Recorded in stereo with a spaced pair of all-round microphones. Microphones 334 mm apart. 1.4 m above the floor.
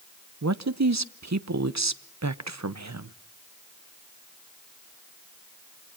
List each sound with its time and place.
0.4 s a man speaking: 55° right (ahead or behind), 0.8 m